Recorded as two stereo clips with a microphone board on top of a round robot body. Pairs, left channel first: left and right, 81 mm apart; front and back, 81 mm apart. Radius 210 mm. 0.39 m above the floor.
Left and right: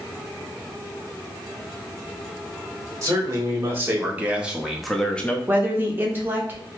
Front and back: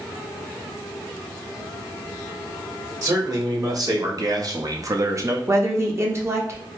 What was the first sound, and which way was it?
A man speaking, 140° right.